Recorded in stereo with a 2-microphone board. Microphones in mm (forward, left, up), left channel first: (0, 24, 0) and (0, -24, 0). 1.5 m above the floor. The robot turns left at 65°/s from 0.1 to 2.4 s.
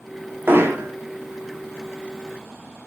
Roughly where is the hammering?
Right.